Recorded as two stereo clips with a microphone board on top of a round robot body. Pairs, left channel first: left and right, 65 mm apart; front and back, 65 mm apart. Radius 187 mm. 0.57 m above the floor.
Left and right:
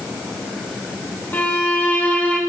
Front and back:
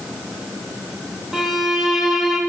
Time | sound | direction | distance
1.3 | a violin | 100° left | 1.3 m